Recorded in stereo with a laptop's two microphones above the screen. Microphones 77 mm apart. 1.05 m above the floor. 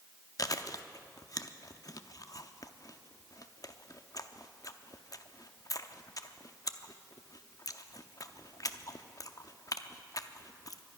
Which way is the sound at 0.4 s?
50° left (ahead or behind).